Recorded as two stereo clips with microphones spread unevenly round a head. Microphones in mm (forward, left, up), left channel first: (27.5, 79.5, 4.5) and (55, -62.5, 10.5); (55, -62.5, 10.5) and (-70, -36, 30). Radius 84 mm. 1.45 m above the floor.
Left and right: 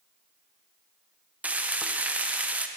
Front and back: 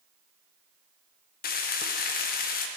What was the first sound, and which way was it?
Frying, straight ahead.